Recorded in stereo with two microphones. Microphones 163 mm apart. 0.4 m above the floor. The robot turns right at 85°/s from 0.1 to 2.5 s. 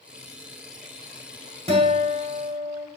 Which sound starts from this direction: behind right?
A guitar, at 1.7 s.